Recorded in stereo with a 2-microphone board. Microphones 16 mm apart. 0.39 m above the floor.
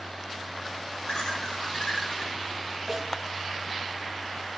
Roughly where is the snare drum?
Centre.